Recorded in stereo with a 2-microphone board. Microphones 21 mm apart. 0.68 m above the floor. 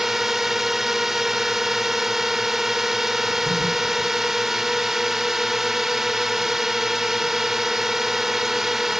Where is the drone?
15° right (ahead or behind).